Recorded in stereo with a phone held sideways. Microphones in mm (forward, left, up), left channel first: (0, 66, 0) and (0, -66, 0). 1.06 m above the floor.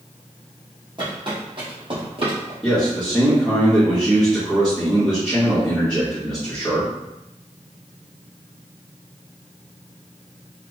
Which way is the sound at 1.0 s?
35° right (ahead or behind).